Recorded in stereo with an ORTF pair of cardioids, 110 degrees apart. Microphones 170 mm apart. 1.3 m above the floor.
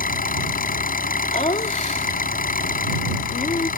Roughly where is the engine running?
Ahead left.